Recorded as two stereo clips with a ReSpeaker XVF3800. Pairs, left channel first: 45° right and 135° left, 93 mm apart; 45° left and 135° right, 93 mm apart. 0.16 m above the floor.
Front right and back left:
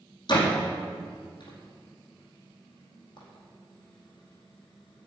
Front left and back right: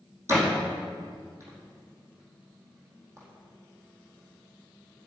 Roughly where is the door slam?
Right.